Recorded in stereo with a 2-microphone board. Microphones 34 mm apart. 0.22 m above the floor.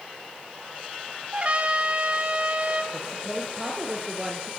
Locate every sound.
1.3 s a trumpet: 35° right (ahead or behind), 2 m
2.9 s a woman speaking: 10° right (ahead or behind), 4 m